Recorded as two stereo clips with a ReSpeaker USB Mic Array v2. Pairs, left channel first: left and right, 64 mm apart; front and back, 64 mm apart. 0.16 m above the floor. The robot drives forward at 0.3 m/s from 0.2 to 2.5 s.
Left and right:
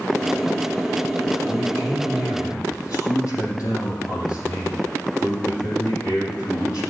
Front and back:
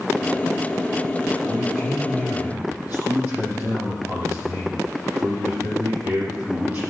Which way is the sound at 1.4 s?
115° left.